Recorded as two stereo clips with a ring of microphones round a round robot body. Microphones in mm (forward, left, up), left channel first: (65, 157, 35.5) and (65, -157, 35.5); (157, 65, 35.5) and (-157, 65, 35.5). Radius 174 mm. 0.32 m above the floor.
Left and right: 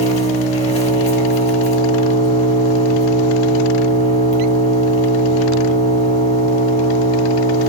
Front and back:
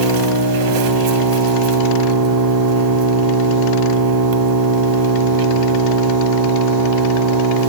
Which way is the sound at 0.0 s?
160° left.